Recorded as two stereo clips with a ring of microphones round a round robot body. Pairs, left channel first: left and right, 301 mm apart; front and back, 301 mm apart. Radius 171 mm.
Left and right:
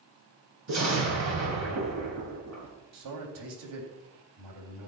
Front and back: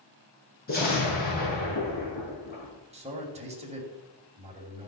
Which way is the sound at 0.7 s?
60° right.